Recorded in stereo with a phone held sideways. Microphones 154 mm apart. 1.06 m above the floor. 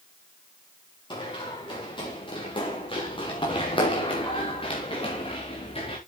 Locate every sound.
1.1 s running footsteps: 30° left (ahead or behind), 7 m; by 6.0 s 40° left (ahead or behind), 4.5 m